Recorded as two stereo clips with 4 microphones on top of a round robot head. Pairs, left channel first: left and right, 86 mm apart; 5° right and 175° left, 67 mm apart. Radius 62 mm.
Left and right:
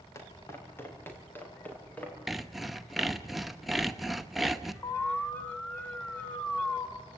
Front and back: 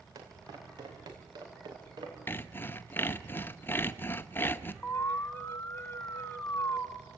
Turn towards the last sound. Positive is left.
turn(degrees=25)